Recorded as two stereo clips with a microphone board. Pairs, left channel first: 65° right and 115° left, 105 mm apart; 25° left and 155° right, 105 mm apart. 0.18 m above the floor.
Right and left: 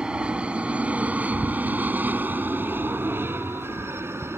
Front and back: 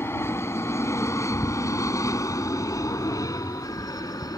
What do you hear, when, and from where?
0.0 s an aircraft: 45° left; by 4.4 s 55° left